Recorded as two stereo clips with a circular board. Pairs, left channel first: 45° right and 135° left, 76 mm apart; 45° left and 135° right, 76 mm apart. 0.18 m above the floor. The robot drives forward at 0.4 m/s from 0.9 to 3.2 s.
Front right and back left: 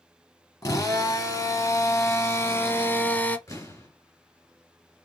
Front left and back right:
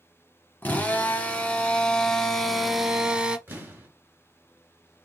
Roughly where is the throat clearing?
No throat clearing in this recording.